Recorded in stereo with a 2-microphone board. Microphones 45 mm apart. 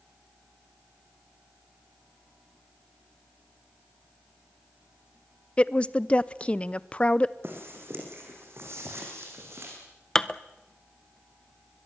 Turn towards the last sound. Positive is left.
turn(degrees=10)  # may be behind; listen again after turning